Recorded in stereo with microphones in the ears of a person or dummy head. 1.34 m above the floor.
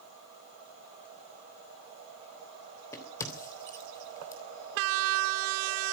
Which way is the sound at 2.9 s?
15° left (ahead or behind).